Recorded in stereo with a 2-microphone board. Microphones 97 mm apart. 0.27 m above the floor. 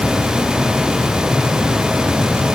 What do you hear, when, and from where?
Only background noise.